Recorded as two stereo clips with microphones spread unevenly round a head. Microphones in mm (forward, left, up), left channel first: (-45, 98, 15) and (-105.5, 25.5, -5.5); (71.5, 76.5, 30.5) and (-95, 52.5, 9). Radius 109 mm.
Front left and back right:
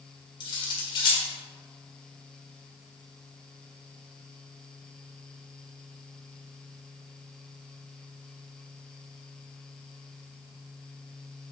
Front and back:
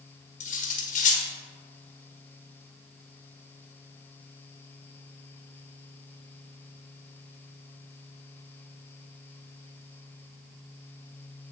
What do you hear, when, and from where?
0.4 s cutlery clinking: 35° left, 1.4 m